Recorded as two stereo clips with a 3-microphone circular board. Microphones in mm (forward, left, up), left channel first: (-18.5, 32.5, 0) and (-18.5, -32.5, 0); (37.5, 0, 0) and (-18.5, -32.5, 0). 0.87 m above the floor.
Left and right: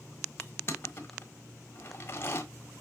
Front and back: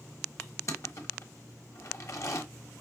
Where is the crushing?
50° left, 1.1 m.